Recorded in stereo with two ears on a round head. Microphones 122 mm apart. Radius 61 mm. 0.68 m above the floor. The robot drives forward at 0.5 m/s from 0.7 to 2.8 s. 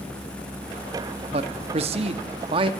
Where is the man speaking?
45° right (ahead or behind), 0.9 m; by 2.7 s 40° right (ahead or behind), 1.0 m.